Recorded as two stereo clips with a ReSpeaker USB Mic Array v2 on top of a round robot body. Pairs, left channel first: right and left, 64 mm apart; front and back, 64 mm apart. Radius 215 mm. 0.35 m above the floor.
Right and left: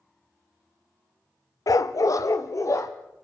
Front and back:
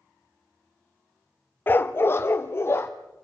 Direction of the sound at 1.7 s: 60° right.